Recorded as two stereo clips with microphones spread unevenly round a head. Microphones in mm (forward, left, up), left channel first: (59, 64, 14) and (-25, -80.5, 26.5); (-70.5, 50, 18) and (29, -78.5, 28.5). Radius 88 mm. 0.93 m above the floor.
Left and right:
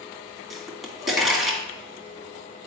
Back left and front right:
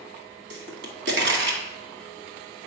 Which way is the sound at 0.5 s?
30° right.